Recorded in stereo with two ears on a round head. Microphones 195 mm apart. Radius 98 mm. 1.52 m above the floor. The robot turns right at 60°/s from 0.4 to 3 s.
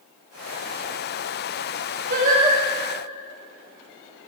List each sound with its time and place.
2.1 s singing: 45° right (ahead or behind), 3.5 m; by 2.6 s 15° right (ahead or behind), 3.5 m